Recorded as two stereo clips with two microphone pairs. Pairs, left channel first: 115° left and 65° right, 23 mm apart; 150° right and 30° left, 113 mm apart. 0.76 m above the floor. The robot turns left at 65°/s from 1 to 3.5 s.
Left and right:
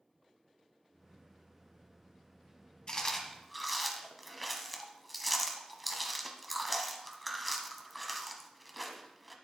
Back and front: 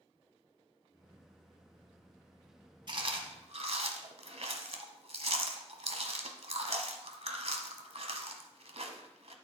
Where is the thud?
I don't hear a thud.